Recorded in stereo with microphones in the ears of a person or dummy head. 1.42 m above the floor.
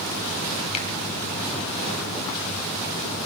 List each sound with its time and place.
0.7 s a finger snap: 35° left (ahead or behind), 2 m